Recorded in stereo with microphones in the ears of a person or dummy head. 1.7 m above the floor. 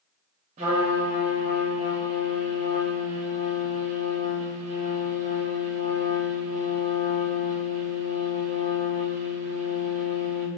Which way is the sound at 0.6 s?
40° right (ahead or behind).